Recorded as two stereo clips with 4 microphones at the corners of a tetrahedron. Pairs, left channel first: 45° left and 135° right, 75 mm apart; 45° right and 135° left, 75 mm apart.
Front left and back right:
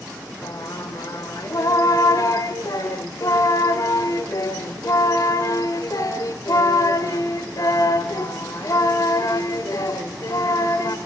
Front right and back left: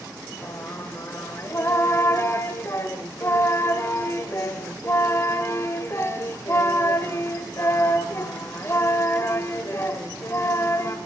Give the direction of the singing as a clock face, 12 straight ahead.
12 o'clock.